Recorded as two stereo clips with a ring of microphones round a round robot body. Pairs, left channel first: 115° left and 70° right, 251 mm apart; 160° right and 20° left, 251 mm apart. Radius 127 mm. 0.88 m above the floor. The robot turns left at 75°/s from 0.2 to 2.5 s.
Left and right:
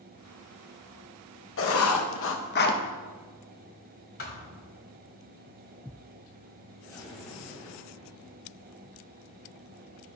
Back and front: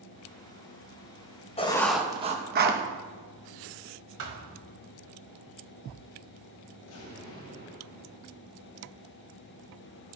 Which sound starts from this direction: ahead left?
A thud, at 4.2 s.